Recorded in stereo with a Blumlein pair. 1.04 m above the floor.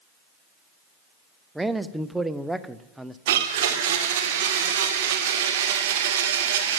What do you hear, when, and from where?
1.6 s a man speaking: 5° right, 0.6 m
3.3 s a blender: 55° right, 1.9 m